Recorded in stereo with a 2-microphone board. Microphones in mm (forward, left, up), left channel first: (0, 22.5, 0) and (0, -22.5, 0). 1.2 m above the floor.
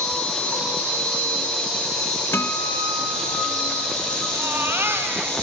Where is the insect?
10° left (ahead or behind), 9 m.